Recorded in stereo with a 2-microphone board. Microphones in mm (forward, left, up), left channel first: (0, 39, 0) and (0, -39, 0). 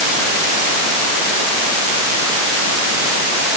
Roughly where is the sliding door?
I don't hear a sliding door.